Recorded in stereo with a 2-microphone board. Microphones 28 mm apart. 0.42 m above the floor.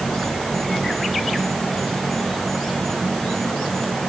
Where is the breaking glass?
No breaking glass in this recording.